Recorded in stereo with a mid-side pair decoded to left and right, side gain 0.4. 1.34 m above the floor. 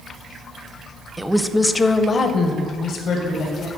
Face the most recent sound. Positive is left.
turn(degrees=80)